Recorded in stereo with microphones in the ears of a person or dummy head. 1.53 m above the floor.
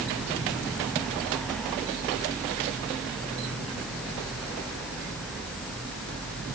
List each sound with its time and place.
Only background noise.